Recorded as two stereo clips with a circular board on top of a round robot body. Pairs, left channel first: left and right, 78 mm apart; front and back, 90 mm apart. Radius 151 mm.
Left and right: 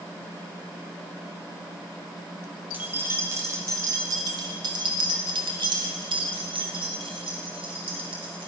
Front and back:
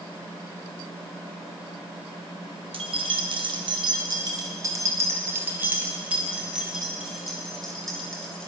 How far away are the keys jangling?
About 2 m.